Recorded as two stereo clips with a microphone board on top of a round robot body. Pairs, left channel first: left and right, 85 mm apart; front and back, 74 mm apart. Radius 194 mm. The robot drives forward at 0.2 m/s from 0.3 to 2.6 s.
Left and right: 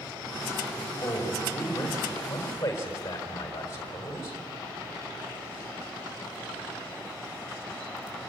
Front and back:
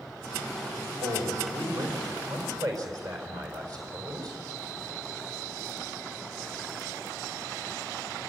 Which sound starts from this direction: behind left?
A man speaking, at 1.0 s.